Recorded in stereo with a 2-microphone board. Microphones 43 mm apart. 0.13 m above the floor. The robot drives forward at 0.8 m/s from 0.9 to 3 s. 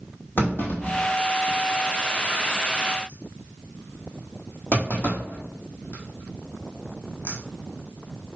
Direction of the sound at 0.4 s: 50° left (ahead or behind).